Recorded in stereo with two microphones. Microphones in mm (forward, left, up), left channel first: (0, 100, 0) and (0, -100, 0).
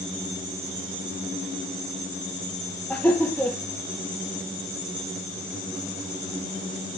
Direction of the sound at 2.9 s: 10° left (ahead or behind).